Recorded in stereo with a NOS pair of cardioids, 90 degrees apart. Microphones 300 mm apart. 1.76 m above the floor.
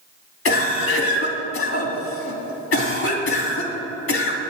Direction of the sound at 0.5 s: 45° left.